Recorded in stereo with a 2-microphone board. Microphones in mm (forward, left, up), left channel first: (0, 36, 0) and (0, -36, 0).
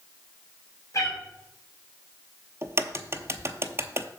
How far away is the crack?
About 0.5 m.